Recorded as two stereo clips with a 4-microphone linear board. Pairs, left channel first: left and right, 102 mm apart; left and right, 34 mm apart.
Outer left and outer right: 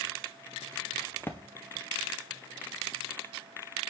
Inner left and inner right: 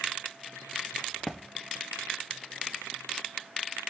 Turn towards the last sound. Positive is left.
turn(degrees=20)  # may be behind; listen again after turning